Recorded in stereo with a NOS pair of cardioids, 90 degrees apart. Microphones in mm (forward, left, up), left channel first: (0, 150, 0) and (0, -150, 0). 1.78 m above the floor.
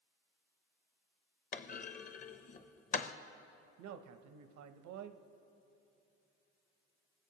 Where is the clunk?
30° left, 0.6 m.